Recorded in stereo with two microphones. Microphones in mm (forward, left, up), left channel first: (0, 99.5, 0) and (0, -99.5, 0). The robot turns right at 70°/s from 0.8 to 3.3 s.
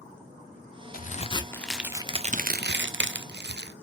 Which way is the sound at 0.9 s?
125° left.